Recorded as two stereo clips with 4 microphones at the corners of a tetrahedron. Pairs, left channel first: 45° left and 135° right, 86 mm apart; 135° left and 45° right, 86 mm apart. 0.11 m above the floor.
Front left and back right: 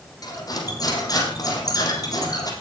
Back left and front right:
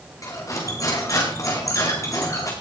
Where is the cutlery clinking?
85° left, 4.5 m.